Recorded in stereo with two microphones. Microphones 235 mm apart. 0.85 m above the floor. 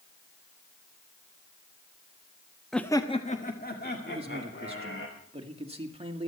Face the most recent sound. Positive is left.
turn(degrees=-25)  # may be behind; listen again after turning